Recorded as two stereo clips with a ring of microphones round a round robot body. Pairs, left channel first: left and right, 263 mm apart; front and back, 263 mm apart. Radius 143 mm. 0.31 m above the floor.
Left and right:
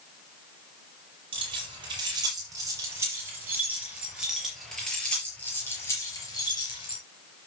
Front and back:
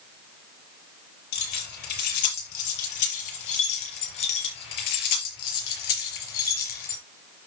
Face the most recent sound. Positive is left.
turn(degrees=15)